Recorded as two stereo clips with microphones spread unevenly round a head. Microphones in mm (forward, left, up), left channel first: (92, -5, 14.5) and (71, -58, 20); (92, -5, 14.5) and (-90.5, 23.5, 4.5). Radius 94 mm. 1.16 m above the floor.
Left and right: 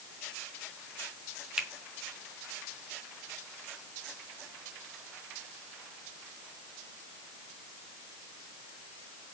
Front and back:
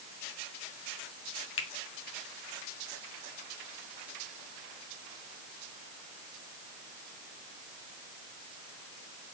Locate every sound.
1.6 s a finger snap: 35° right, 1.4 m